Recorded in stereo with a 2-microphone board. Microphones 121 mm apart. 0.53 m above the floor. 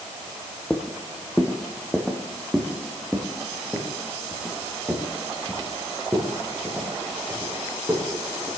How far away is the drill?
No drill in this recording.